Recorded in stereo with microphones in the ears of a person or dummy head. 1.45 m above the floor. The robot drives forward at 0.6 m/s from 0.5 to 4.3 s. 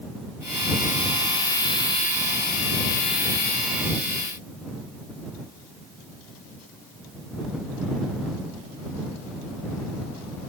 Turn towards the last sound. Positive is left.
No sound to turn to.